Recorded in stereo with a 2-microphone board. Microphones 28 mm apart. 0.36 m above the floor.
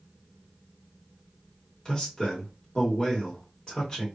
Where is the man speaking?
20° left (ahead or behind), 1.2 m.